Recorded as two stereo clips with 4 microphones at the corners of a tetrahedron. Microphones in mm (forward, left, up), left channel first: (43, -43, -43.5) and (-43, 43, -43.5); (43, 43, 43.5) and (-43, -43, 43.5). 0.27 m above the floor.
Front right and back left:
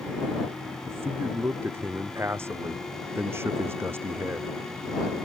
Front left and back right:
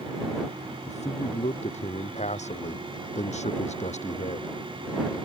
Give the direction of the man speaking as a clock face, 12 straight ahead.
10 o'clock.